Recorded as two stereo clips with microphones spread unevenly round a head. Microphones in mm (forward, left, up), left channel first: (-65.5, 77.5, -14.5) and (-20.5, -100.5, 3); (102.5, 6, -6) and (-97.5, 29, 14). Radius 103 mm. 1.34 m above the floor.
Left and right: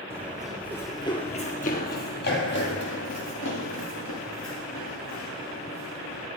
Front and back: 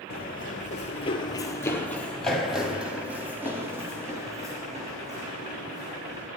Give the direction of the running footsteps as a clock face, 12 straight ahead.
12 o'clock.